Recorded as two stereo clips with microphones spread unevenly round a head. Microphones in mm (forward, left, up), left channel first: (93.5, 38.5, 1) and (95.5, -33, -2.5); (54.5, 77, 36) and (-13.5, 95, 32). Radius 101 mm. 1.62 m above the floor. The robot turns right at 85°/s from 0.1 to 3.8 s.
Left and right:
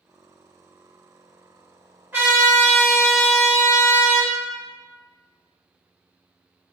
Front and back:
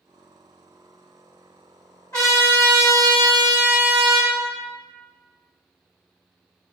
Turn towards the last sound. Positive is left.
turn(degrees=110)